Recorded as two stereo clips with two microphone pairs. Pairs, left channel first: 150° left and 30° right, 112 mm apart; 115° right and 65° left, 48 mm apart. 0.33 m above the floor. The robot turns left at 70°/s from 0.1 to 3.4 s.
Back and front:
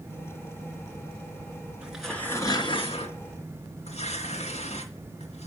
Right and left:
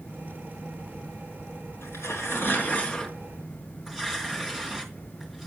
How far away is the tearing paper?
About 3 m.